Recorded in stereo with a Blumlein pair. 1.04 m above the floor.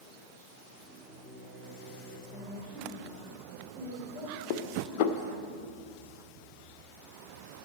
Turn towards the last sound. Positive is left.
turn(degrees=45)